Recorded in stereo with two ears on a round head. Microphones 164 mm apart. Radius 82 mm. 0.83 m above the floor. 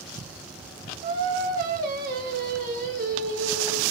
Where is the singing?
50° right (ahead or behind), 1.0 m.